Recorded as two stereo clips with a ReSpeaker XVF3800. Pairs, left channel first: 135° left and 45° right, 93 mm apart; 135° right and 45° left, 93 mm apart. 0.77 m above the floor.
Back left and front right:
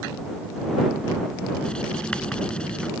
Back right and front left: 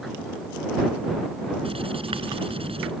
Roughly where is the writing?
Ahead left.